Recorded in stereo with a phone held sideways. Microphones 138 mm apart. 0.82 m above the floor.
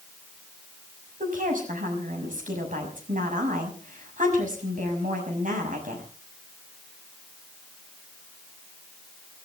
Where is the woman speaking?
75° right (ahead or behind), 6 m.